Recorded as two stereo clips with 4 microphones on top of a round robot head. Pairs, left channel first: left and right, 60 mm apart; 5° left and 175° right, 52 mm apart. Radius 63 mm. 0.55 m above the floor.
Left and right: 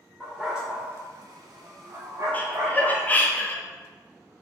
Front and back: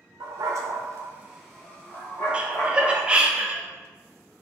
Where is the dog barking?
Straight behind, 0.9 m; by 3.2 s 45° right, 1.7 m.